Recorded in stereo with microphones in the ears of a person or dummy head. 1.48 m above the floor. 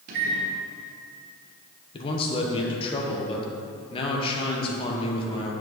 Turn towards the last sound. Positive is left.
turn(degrees=30)  # may be behind; listen again after turning